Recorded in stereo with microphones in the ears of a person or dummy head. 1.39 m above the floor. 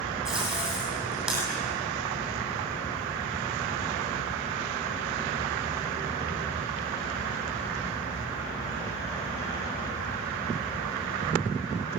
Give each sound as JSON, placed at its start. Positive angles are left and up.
{"t": 0.2, "sound": "tape being pulled", "side_deg": 0, "distance_m": 9.0}